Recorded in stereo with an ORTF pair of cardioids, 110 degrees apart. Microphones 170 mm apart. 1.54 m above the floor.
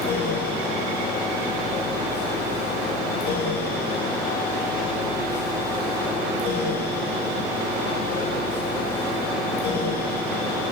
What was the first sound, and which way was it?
A fan, 65° left.